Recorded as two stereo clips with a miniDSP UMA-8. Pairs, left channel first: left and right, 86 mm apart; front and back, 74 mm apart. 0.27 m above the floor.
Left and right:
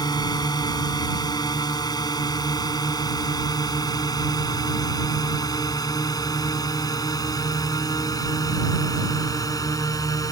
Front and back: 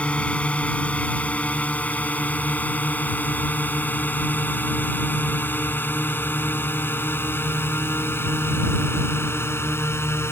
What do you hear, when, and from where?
0.0 s a drone: 70° left; by 10.3 s 50° left